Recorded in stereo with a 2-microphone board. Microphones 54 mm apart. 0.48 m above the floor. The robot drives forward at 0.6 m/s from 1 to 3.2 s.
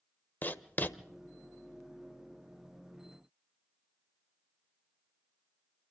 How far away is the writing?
About 1.0 m.